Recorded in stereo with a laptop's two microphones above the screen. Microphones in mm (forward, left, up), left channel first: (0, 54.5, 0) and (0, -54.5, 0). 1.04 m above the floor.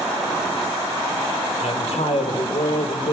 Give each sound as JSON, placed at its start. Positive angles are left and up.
{"t": 1.6, "sound": "a man speaking", "side_deg": 75, "distance_m": 4.0}